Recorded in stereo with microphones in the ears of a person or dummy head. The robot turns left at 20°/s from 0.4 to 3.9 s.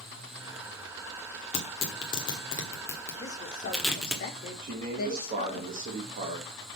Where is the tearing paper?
40° left (ahead or behind), 1.6 m; by 4.2 s centre (ahead or behind), 1.6 m.